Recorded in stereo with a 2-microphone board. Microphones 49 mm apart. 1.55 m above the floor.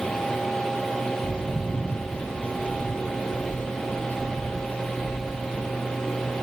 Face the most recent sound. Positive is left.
turn(degrees=30)  # may be behind; listen again after turning